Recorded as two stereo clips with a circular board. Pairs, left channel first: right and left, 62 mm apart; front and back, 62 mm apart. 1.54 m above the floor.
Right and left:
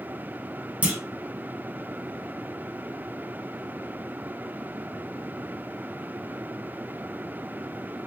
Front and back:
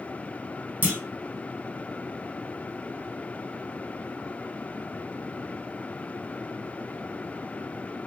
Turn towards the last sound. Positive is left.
turn(degrees=140)